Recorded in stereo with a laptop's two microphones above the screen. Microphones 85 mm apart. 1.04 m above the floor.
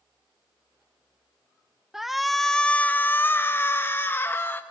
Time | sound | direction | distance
1.9 | a shout | 5° right (ahead or behind) | 1.0 m